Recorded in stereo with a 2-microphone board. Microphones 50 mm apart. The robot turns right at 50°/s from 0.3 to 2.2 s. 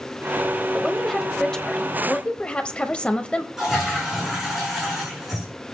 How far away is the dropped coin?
I don't hear a dropped coin.